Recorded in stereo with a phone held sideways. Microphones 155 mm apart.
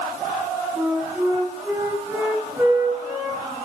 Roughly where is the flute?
Centre.